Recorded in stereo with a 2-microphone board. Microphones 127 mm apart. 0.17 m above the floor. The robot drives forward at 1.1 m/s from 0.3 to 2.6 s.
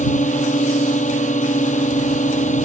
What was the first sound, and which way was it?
A drone, 75° left (ahead or behind).